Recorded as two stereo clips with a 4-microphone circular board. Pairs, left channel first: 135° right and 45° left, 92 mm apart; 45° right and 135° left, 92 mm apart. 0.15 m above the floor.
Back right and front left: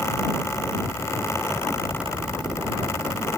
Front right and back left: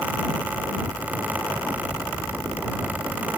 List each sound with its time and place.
Only background noise.